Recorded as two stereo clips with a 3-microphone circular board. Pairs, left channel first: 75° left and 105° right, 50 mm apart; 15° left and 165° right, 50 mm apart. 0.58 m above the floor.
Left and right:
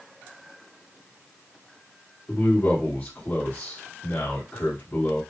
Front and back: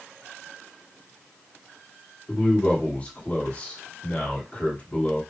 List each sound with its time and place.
2.3 s a man speaking: 60° left, 1.6 m